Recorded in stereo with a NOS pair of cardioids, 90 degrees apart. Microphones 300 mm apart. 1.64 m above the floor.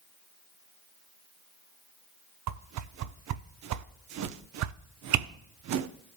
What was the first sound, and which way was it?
A whoosh, 65° right.